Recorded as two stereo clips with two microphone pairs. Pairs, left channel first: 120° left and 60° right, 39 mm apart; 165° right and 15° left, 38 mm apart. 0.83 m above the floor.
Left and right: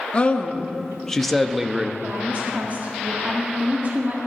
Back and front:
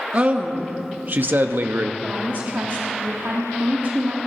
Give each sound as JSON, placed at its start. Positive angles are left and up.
{"t": 0.1, "sound": "a man speaking", "azimuth_deg": 65, "distance_m": 1.2}
{"t": 2.0, "sound": "a woman speaking", "azimuth_deg": -15, "distance_m": 1.6}